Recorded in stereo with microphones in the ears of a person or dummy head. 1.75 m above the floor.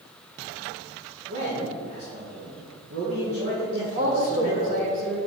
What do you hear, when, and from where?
1.3 s a man speaking: 75° right (ahead or behind), 1.9 m
4.0 s a woman speaking: 50° right (ahead or behind), 1.3 m